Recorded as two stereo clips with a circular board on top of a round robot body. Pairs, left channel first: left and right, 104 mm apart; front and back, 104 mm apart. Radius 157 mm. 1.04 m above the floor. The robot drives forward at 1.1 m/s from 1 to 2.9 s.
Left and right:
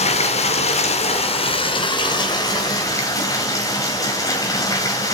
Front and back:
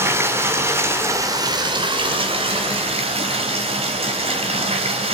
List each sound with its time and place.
0.0 s running water: 110° left, 1.7 m; by 5.1 s 150° left, 3 m